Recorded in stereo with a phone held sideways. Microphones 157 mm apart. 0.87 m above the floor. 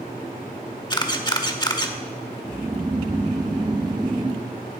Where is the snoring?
25° right (ahead or behind), 0.9 m.